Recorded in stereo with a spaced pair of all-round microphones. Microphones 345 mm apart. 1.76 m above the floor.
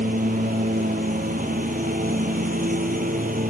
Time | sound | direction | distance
0.0 | a lawn mower | 25° right (ahead or behind) | ?